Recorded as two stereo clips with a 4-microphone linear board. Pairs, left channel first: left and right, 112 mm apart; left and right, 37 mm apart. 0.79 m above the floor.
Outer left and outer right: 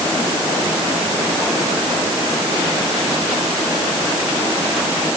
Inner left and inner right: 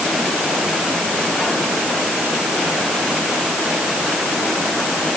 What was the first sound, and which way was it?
Only background noise.